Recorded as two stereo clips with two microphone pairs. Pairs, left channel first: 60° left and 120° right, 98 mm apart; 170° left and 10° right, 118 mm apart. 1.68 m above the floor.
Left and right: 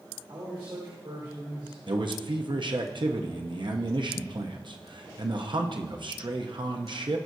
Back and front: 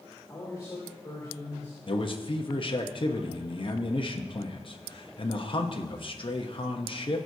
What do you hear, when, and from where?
0.3 s a man speaking: 135° right, 3 m
1.9 s a man speaking: 155° right, 0.9 m